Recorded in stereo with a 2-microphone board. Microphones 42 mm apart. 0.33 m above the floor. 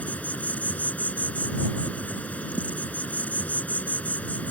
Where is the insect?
35° left (ahead or behind).